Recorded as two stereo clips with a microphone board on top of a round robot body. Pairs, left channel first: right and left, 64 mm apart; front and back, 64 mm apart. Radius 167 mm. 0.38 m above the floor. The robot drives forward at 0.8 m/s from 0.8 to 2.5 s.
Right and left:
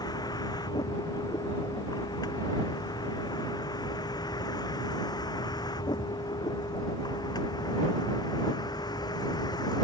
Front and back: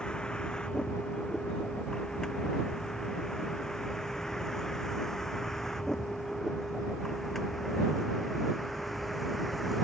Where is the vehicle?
80° right; by 9.8 s 90° right.